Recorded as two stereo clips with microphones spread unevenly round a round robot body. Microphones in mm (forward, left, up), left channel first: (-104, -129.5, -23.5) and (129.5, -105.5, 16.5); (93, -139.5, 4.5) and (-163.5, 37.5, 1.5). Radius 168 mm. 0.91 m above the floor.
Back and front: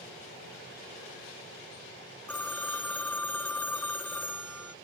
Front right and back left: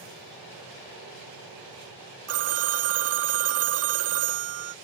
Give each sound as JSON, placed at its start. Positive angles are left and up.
{"t": 2.3, "sound": "a phone ringing", "azimuth_deg": 95}